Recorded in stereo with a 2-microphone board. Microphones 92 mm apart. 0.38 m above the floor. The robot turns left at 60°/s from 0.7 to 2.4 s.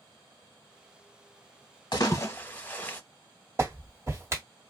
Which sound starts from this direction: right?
A clap, at 3.6 s.